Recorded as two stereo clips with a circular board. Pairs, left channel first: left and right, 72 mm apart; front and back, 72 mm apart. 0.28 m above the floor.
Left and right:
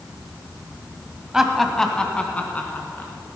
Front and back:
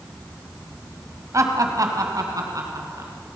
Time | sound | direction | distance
1.3 | laughter | 170° right | 1.5 m